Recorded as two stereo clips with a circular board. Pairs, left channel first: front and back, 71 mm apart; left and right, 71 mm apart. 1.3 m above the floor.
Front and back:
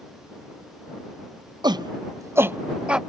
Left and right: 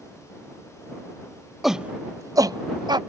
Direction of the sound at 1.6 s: Straight behind.